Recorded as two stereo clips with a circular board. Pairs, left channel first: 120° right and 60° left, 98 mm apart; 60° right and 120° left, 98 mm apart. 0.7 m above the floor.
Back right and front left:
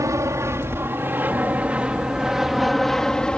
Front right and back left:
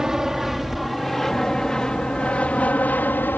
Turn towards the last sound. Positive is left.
turn(degrees=-60)